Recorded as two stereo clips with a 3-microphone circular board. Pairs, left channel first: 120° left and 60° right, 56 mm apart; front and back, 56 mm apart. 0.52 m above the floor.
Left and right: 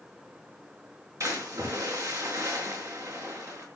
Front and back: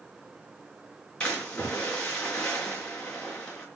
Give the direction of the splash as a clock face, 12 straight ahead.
2 o'clock.